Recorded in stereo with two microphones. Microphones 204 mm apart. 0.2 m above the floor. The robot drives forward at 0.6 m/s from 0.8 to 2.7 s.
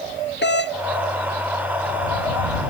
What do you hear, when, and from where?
0.4 s a doorbell: 60° left (ahead or behind)